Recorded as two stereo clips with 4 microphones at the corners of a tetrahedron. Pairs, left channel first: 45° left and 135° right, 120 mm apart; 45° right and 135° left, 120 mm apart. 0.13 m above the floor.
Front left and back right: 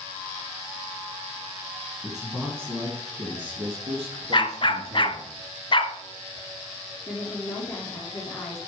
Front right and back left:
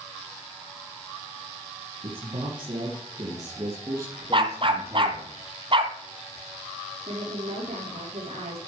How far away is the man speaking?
About 2 m.